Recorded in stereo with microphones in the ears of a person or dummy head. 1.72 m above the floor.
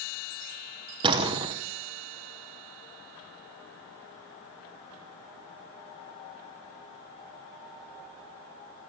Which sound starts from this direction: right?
A door slam, at 1.0 s.